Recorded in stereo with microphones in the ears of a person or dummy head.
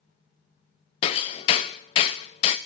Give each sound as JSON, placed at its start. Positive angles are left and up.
{"t": 1.0, "sound": "hammering", "side_deg": 20, "distance_m": 0.5}